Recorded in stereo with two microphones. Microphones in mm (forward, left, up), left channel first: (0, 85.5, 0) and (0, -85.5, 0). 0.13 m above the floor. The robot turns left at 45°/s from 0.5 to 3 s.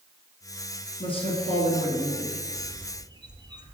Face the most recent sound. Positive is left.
turn(degrees=-25)  # may be behind; listen again after turning